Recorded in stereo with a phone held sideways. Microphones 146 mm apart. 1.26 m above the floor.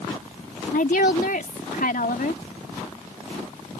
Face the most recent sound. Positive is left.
turn(degrees=80)